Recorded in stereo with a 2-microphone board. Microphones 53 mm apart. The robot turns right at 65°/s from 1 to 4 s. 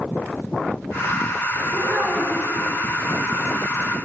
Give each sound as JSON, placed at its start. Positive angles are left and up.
{"t": 1.7, "sound": "a child speaking", "azimuth_deg": -45, "distance_m": 1.4}